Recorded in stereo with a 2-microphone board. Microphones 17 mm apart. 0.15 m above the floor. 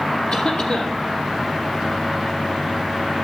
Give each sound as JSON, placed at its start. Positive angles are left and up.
{"t": 0.3, "sound": "a cough", "side_deg": 75, "distance_m": 6.0}